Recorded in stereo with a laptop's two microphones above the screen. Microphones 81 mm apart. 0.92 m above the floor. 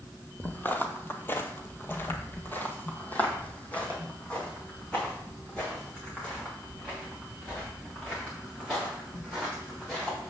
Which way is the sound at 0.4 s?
20° left (ahead or behind).